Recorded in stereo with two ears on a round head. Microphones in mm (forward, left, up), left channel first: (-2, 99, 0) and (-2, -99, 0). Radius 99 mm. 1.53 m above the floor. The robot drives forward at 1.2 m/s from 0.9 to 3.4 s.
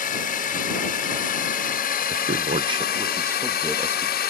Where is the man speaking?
45° right (ahead or behind); by 4.1 s 10° right (ahead or behind).